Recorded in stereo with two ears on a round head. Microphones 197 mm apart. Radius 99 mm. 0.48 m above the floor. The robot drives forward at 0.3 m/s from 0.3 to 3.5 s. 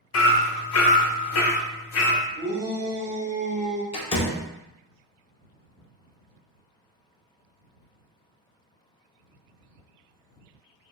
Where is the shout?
25° right (ahead or behind), 1.3 m; by 3.8 s 30° right (ahead or behind), 1.2 m.